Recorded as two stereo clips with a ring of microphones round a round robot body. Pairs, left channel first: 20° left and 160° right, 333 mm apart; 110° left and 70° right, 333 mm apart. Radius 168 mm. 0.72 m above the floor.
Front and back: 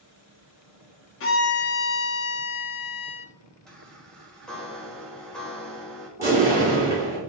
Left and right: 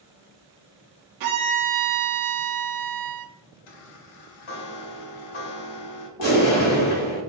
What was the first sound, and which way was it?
A violin, 30° right.